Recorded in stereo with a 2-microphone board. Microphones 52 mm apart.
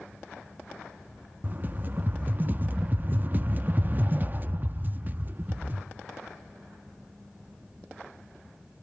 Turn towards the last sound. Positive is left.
turn(degrees=-35)  # may be behind; listen again after turning